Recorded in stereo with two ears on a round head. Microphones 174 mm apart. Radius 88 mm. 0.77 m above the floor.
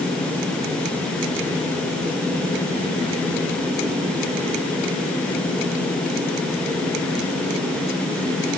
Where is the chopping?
No chopping in this recording.